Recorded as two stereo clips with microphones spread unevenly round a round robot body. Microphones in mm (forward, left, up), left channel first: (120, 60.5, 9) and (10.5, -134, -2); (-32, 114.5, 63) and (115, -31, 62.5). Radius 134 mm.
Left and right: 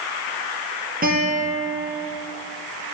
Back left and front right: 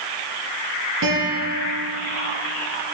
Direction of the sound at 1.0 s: 70° right.